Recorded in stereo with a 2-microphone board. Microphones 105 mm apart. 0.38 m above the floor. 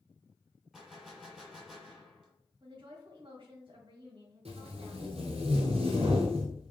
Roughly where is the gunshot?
Centre.